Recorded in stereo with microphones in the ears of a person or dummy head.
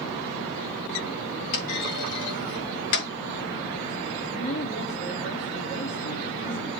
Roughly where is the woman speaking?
Left.